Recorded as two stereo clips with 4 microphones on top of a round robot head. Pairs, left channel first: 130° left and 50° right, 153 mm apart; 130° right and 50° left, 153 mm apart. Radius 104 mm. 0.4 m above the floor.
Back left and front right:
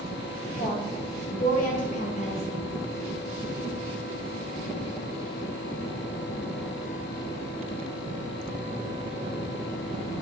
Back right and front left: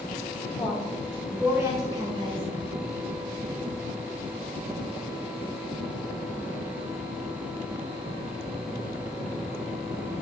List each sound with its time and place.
0.6 s a woman speaking: 145° left, 2.5 m; by 2.4 s 90° left, 1.7 m